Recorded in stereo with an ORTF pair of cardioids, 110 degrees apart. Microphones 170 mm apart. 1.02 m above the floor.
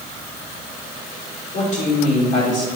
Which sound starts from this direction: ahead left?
A woman speaking, at 1.5 s.